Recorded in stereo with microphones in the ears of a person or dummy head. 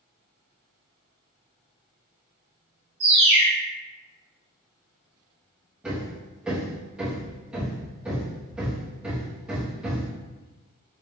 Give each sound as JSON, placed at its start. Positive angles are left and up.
{"t": 3.0, "sound": "a bird", "side_deg": -20, "distance_m": 1.0}
{"t": 5.8, "sound": "hammering", "side_deg": -5, "distance_m": 1.1}